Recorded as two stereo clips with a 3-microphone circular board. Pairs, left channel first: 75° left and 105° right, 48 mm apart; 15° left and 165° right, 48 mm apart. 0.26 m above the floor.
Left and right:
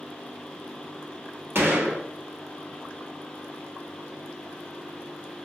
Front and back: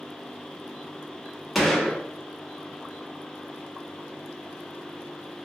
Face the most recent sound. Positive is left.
turn(degrees=-80)